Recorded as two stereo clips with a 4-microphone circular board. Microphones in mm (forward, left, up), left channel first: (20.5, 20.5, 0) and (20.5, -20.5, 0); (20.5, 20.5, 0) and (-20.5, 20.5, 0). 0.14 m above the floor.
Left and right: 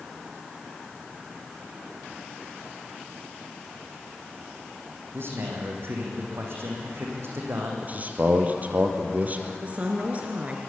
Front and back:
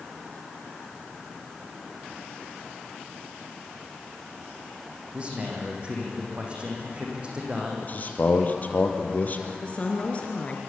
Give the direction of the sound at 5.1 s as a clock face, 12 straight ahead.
4 o'clock.